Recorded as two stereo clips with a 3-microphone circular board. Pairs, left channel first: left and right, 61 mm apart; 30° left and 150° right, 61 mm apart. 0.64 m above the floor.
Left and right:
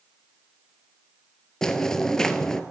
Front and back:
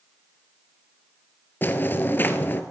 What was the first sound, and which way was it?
Footsteps, 20° left.